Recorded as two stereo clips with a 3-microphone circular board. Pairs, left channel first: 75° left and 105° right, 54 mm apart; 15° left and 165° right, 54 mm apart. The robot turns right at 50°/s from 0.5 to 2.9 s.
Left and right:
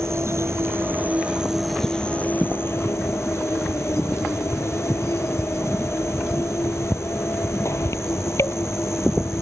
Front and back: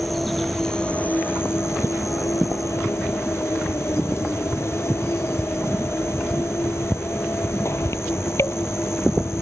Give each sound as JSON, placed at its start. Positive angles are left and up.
{"t": 0.0, "sound": "an insect", "azimuth_deg": -75}